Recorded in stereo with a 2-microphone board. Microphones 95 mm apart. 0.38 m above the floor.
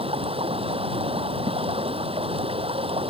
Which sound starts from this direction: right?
Running water, at 0.0 s.